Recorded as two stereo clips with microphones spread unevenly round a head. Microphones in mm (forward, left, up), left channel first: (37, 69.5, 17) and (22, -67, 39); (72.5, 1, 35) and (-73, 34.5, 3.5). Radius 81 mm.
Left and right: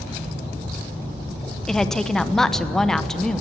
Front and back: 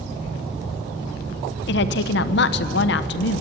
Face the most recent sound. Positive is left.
turn(degrees=0)